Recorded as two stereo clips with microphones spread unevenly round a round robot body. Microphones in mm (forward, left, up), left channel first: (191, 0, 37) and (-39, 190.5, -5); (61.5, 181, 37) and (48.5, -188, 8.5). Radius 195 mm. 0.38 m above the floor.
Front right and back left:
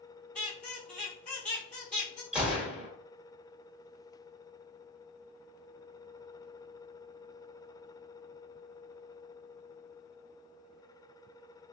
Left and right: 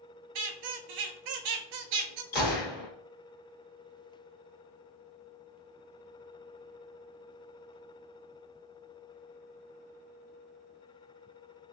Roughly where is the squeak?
Behind right.